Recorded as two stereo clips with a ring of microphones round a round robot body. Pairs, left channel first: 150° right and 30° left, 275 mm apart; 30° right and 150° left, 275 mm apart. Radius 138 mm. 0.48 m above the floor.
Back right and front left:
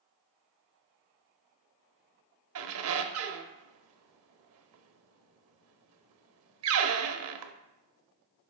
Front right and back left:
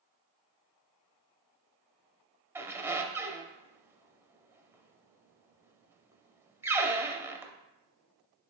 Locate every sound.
2.5 s a squeak: 70° left, 0.6 m